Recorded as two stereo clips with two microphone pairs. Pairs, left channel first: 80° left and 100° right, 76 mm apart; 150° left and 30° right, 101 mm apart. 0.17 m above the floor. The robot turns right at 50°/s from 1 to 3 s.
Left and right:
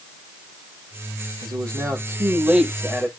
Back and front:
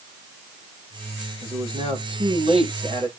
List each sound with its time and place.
1.4 s a man speaking: 75° right, 7 m; by 3.1 s 5° left, 7 m